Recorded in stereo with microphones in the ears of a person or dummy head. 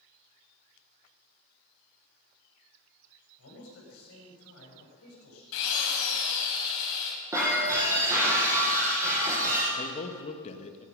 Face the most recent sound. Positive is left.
turn(degrees=45)  # may be behind; listen again after turning